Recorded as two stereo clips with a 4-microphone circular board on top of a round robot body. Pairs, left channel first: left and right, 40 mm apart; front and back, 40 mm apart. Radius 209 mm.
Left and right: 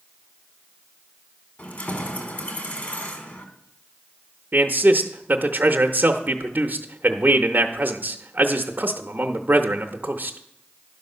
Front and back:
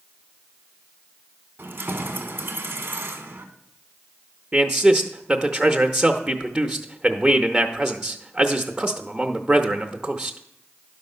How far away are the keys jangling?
About 1.4 m.